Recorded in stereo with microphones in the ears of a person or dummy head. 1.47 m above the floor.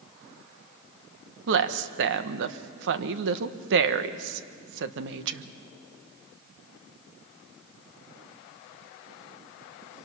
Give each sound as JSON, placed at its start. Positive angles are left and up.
{"t": 1.5, "sound": "a woman speaking", "side_deg": -70, "distance_m": 1.0}